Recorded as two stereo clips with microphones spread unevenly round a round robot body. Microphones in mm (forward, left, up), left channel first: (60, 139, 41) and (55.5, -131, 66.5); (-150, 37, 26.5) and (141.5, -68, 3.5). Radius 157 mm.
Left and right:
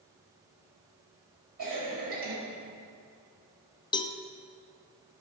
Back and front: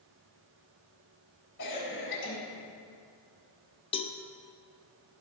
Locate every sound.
1.6 s a cough: 150° right, 3.5 m
3.9 s a cowbell: 105° left, 0.6 m